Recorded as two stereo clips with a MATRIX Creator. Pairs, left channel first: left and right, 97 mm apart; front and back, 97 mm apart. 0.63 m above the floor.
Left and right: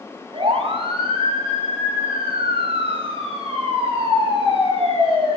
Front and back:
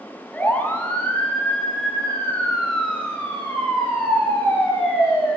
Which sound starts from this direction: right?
A siren, at 0.3 s.